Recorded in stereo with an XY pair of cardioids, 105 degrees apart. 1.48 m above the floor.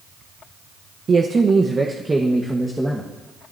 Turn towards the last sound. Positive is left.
turn(degrees=-5)